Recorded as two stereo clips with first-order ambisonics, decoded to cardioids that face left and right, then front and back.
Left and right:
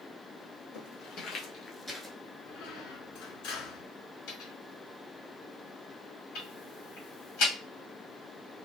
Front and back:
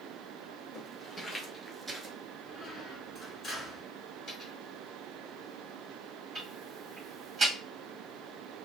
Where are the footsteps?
70° left, 1.8 m; by 2.1 s 150° right, 0.9 m.